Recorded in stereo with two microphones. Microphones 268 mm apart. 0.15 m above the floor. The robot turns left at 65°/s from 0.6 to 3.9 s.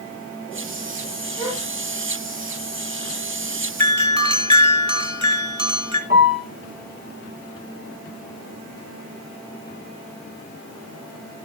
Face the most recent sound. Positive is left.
turn(degrees=-30)  # may be behind; listen again after turning